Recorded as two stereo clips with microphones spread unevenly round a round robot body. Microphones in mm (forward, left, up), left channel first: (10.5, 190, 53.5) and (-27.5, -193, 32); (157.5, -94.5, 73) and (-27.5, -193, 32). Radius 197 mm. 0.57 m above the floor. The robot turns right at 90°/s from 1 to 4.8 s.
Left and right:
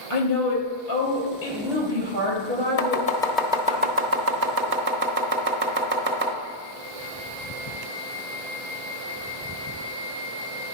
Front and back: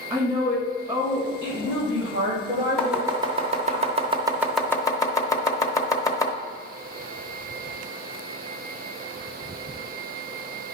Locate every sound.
0.1 s a woman speaking: 120° left, 3.5 m; by 3.8 s 10° left, 3.5 m
2.8 s chopping: 125° left, 1.1 m; by 6.3 s 55° right, 1.1 m